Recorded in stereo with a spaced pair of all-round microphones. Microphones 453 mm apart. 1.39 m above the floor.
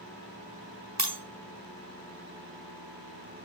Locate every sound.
1.0 s breaking glass: 35° right (ahead or behind), 1.2 m